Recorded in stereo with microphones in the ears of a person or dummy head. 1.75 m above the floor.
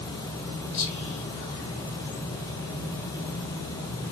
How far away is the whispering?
About 0.5 m.